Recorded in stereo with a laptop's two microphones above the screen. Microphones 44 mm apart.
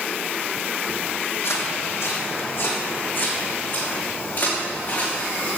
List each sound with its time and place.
1.4 s footsteps: 70° left (ahead or behind), 2.5 m; by 5.5 s 40° left (ahead or behind), 6 m